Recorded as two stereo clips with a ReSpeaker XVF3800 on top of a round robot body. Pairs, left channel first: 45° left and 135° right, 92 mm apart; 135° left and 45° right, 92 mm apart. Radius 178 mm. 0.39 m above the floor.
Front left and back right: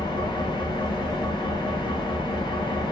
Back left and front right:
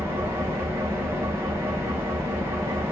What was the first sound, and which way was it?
An engine running, 15° left.